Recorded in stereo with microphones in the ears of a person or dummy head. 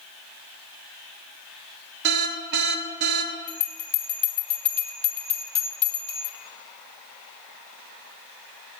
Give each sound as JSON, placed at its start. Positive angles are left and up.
{"t": 2.0, "sound": "an alarm", "side_deg": -60, "distance_m": 0.9}
{"t": 3.5, "sound": "a bell", "side_deg": 5, "distance_m": 1.4}